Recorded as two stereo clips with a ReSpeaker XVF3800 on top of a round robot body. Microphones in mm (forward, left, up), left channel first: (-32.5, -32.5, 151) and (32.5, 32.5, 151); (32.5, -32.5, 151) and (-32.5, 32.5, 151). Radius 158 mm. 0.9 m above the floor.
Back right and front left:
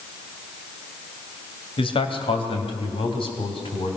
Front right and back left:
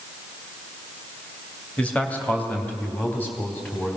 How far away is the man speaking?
About 2 m.